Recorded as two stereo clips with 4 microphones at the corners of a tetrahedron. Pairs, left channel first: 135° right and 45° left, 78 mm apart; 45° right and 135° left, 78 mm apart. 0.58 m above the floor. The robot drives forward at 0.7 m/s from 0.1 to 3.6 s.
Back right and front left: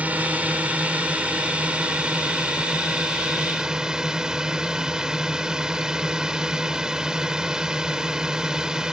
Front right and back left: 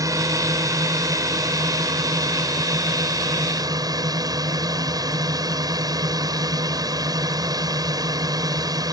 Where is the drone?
110° left; by 8.9 s 125° left.